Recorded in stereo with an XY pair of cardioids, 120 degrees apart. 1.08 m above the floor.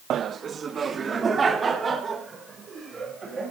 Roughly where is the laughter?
Ahead right.